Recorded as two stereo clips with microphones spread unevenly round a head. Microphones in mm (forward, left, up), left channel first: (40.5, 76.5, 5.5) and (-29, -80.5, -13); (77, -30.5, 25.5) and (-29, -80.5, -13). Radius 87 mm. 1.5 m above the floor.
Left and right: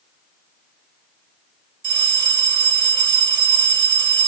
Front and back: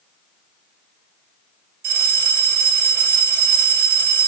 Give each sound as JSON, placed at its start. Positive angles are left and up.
{"t": 1.8, "sound": "a bell", "azimuth_deg": -175, "distance_m": 2.0}